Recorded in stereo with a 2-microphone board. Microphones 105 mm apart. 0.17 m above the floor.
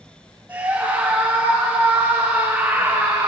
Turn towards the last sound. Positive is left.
turn(degrees=-35)  # may be behind; listen again after turning